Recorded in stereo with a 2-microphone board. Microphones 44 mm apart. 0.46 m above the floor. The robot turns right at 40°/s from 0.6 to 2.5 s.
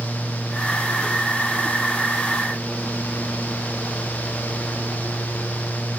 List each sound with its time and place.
Only background noise.